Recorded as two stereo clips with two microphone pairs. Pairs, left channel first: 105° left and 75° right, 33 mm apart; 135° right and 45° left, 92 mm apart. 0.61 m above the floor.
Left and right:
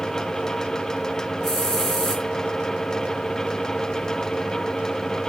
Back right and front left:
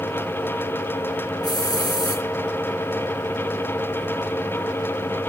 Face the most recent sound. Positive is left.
turn(degrees=180)